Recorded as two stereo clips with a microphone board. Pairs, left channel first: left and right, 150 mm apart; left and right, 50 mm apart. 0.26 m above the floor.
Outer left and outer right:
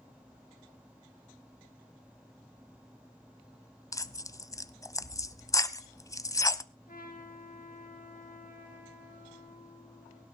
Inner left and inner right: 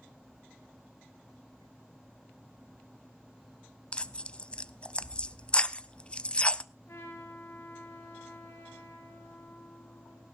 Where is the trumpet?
70° left (ahead or behind), 5.5 m.